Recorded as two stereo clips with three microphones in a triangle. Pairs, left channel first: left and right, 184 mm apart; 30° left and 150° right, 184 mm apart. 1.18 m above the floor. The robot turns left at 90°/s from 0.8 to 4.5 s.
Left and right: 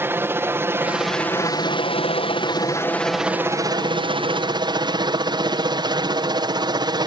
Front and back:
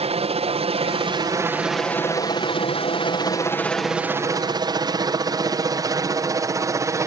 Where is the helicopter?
160° right; by 7.1 s 105° right.